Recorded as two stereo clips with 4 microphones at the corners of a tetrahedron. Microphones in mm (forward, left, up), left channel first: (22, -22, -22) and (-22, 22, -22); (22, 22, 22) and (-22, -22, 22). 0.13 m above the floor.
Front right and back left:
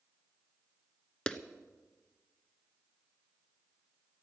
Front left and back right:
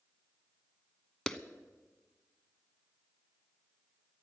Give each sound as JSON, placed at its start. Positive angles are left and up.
{"t": 1.3, "sound": "a clap", "azimuth_deg": -10, "distance_m": 0.8}